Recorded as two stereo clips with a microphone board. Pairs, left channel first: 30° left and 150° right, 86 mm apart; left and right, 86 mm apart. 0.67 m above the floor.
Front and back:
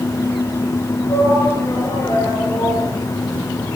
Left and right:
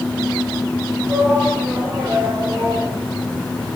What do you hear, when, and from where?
1.1 s a shout: 15° right, 7.5 m; by 2.9 s 25° right, 8 m